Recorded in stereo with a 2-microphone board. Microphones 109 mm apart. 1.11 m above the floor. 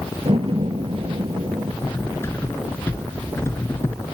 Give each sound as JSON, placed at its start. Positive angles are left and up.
{"t": 0.2, "sound": "a door slam", "side_deg": -55}
{"t": 1.8, "sound": "cutlery clinking", "side_deg": 25}